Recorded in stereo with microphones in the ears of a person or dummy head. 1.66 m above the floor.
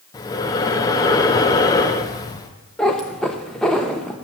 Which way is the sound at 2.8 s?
5° left (ahead or behind).